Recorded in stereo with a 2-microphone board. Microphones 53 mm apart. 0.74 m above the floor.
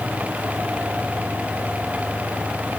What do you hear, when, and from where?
Only background noise.